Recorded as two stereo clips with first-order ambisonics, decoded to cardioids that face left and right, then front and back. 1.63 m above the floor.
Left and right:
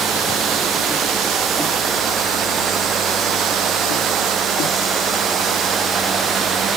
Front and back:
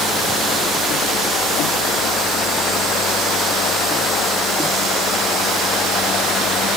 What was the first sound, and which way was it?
Only background noise.